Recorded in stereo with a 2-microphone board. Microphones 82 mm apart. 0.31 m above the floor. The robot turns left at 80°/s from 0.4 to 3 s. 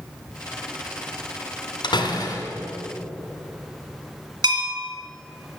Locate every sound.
1.8 s a door slam: 95° left, 1.7 m; by 2.5 s 40° left, 1.7 m
4.4 s a bell: 55° right (ahead or behind), 2 m